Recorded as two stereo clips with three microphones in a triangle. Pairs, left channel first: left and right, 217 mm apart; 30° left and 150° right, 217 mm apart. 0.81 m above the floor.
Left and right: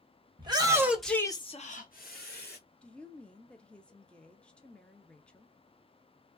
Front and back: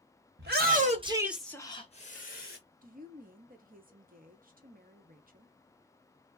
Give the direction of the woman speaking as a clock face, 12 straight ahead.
6 o'clock.